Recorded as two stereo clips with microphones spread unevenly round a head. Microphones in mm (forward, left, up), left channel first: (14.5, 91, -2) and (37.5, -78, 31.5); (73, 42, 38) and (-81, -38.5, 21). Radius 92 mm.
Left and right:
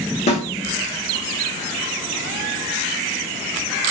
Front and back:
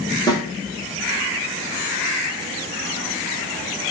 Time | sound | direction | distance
0.3 | a snare drum | 60° left | 0.6 m